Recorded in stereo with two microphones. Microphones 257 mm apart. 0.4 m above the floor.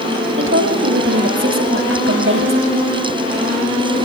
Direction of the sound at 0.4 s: 50° right (ahead or behind).